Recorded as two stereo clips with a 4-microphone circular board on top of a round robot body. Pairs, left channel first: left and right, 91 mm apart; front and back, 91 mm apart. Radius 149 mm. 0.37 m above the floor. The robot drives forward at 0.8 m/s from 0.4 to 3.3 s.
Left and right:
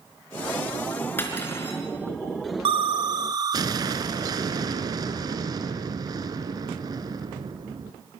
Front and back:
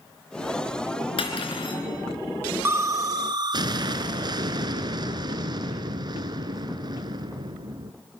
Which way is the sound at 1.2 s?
25° left.